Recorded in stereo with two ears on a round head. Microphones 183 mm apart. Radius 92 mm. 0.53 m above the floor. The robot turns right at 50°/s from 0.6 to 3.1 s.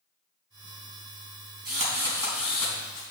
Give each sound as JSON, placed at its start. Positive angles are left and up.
{"t": 1.6, "sound": "a drill", "azimuth_deg": -45, "distance_m": 3.5}